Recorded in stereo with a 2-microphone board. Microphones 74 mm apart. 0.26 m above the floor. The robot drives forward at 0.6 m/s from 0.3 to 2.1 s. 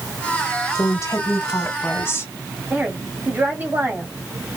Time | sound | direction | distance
0.8 | a woman speaking | 45° left (ahead or behind) | 1.5 m
2.7 | a woman speaking | 25° right (ahead or behind) | 1.8 m